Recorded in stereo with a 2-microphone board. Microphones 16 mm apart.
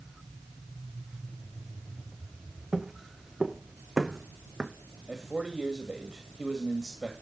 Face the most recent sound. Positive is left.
turn(degrees=-40)  # may be behind; listen again after turning